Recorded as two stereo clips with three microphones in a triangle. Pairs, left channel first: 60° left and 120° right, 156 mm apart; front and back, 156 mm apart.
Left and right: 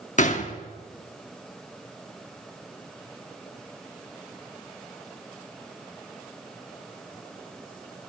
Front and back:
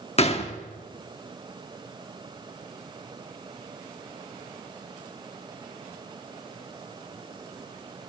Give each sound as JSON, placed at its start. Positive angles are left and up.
{"t": 0.2, "sound": "a gunshot", "azimuth_deg": 35, "distance_m": 1.1}